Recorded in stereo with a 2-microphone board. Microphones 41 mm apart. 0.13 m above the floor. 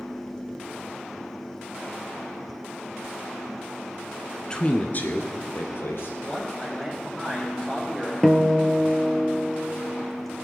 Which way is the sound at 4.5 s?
20° left (ahead or behind).